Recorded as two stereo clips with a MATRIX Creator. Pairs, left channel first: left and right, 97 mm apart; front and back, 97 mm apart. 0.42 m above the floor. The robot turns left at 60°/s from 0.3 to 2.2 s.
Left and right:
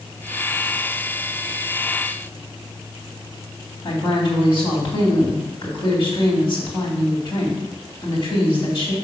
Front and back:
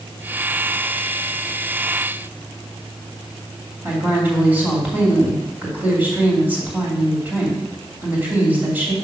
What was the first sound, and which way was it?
A woman speaking, 110° left.